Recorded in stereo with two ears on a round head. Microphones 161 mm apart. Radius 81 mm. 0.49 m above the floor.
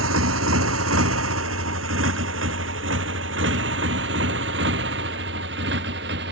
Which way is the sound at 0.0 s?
90° right.